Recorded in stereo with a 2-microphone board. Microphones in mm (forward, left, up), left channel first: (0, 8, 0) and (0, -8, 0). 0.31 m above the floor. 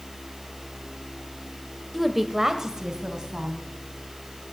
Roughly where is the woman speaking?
Centre.